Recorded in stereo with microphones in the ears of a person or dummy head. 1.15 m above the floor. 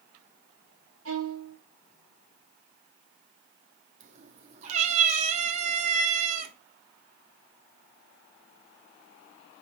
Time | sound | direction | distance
1.1 | a violin | 70° right (ahead or behind) | 1.7 m
4.0 | a cat meowing | 45° right (ahead or behind) | 1.0 m